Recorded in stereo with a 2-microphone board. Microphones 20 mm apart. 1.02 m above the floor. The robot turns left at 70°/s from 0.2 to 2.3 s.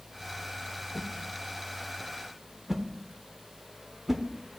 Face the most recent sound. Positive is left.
turn(degrees=-5)  # may be behind; listen again after turning